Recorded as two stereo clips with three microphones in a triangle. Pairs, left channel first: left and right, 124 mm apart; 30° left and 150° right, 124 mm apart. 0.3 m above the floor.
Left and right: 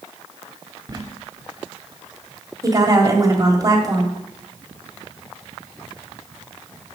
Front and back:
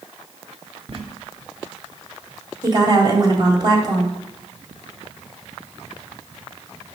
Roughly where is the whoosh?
No whoosh in this recording.